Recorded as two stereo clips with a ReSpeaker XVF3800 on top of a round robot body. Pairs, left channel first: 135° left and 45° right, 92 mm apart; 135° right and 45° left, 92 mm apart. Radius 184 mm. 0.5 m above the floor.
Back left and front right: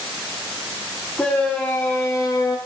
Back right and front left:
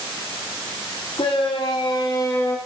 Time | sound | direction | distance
1.2 | a shout | 150° right | 2.5 m